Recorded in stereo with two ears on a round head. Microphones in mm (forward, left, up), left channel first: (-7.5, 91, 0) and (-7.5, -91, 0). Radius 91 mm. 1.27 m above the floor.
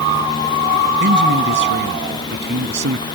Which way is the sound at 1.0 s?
60° right (ahead or behind).